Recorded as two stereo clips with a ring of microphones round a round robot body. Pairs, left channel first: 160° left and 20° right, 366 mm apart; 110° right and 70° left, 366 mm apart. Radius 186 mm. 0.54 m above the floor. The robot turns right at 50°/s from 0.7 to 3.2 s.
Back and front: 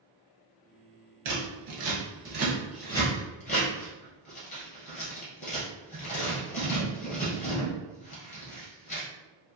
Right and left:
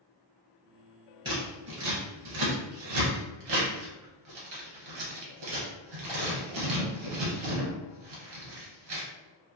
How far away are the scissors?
About 1.7 m.